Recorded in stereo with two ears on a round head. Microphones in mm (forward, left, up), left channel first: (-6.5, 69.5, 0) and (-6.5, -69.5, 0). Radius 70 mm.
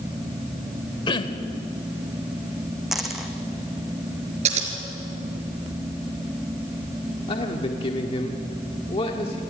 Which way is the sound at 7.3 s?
35° left (ahead or behind).